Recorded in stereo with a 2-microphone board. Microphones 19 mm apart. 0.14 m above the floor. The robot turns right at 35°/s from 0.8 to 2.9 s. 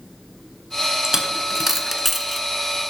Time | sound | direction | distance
1.0 | a dropped coin | 25° right (ahead or behind) | 0.7 m